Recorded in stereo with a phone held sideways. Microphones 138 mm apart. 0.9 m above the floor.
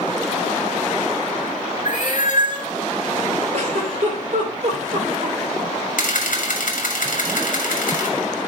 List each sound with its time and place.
1.9 s a cat meowing: 70° left (ahead or behind), 1.9 m
3.5 s a giggle: 50° right (ahead or behind), 2.5 m
6.0 s a camera shutter: 70° left (ahead or behind), 1.8 m